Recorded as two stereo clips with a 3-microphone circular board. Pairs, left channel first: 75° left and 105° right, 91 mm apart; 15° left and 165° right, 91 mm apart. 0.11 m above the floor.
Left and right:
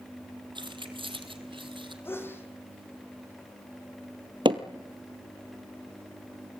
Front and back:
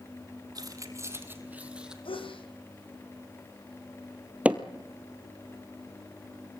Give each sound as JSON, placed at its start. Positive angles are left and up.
{"t": 0.6, "sound": "keys jangling", "azimuth_deg": -125, "distance_m": 2.5}
{"t": 2.0, "sound": "a sneeze", "azimuth_deg": 10, "distance_m": 4.5}
{"t": 4.5, "sound": "hammering", "azimuth_deg": -95, "distance_m": 1.5}